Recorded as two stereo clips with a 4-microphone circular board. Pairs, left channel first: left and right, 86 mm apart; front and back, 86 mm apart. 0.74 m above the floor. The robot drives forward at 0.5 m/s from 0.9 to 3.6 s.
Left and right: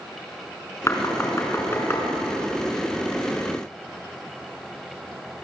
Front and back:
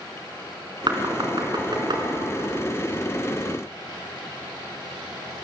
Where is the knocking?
150° left, 5 m.